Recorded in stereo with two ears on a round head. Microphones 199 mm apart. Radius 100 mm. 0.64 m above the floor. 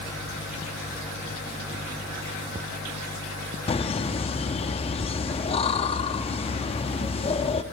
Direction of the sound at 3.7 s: 25° left (ahead or behind).